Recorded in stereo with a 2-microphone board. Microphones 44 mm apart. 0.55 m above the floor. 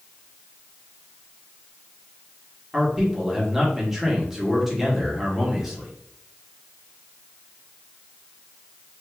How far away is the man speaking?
About 1.1 m.